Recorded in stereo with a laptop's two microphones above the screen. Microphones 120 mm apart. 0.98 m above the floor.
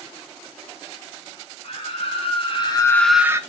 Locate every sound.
1.6 s a scream: 60° left (ahead or behind), 1.7 m; by 3.4 s 25° right (ahead or behind), 0.7 m